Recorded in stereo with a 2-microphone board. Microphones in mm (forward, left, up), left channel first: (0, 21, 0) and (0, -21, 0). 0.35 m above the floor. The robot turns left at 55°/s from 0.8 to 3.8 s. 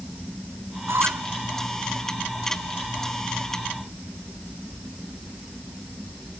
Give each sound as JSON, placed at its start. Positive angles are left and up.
{"t": 0.9, "sound": "a squeak", "side_deg": -85}